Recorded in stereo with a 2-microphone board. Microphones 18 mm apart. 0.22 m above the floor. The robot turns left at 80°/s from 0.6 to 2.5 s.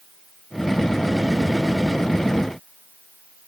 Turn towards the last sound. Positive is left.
No sound to turn to.